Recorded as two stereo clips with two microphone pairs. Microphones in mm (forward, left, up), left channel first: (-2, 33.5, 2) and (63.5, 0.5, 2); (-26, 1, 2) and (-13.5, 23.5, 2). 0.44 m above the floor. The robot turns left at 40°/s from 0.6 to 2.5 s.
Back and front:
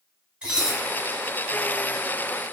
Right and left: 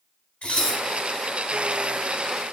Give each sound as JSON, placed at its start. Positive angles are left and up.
{"t": 0.4, "sound": "dishes clattering", "azimuth_deg": -100, "distance_m": 1.1}